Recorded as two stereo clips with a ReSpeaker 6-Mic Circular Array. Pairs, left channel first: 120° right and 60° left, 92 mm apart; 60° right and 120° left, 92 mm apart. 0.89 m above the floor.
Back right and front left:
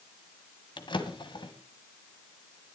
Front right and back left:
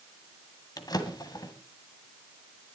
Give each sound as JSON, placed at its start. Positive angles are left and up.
{"t": 0.8, "sound": "a drawer", "azimuth_deg": -100, "distance_m": 1.6}